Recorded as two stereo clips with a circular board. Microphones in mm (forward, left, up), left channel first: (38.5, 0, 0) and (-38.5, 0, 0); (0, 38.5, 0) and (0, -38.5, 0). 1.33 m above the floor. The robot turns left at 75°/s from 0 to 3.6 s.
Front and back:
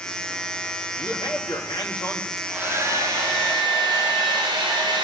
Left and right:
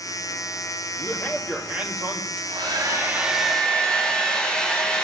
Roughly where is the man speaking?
Ahead left.